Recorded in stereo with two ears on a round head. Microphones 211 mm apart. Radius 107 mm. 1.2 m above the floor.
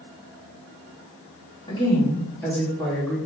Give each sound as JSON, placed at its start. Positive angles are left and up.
{"t": 1.7, "sound": "a woman speaking", "side_deg": 20, "distance_m": 2.5}